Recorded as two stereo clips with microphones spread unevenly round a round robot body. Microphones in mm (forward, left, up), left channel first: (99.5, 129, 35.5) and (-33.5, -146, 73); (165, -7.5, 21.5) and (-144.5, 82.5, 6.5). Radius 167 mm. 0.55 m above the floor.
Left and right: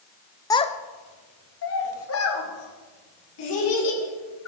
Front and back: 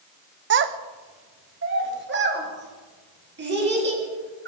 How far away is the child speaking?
About 0.5 m.